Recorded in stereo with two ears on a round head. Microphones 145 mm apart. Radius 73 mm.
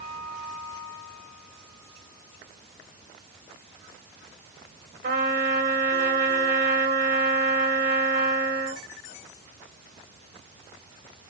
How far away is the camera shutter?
I don't hear a camera shutter.